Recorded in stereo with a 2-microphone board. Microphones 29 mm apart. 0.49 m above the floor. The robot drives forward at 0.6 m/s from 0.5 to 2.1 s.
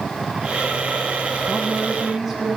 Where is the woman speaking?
15° right (ahead or behind), 3.5 m.